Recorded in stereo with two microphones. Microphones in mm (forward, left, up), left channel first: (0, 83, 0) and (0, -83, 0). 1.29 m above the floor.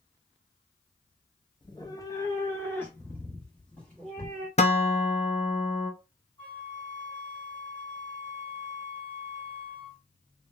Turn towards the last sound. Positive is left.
turn(degrees=30)  # may be behind; listen again after turning